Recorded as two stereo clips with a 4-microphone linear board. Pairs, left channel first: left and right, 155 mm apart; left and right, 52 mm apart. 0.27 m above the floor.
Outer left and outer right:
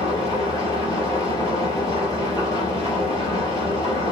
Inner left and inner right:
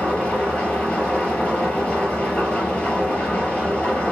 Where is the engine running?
25° left (ahead or behind), 4 m.